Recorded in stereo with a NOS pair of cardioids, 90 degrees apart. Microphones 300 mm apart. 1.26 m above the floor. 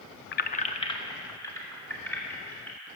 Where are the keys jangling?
40° left, 0.6 m; by 2.9 s 5° left, 3.5 m.